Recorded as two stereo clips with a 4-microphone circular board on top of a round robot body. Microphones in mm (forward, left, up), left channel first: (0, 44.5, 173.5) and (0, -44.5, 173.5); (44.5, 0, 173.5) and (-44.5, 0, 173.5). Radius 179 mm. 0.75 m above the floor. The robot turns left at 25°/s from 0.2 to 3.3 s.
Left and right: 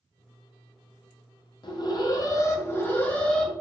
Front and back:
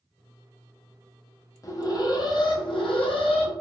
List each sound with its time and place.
1.6 s an alarm: 55° left, 0.5 m; by 3.5 s 10° left, 0.5 m